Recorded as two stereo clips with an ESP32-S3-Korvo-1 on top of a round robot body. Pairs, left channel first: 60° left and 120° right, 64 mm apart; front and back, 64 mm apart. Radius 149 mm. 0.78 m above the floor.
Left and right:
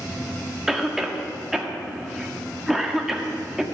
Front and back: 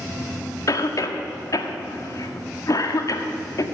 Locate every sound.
0.7 s a cough: 35° right, 1.9 m